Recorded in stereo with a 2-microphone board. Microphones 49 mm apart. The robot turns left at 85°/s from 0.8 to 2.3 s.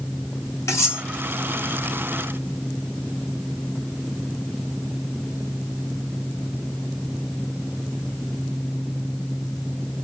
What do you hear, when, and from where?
0.7 s cutlery clinking: 80° left, 2 m; by 1.0 s 60° left (ahead or behind), 2 m